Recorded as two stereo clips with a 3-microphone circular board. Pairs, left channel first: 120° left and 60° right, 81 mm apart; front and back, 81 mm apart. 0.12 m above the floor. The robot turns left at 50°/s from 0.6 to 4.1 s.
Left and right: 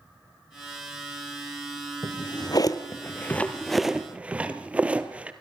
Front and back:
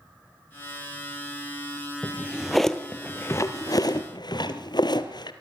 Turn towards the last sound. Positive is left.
turn(degrees=15)